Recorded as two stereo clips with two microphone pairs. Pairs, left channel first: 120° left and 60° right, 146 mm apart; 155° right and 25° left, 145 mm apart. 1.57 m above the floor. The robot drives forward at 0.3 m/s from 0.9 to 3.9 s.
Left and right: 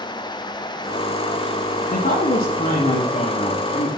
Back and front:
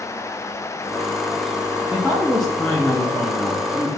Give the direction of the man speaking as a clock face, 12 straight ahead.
8 o'clock.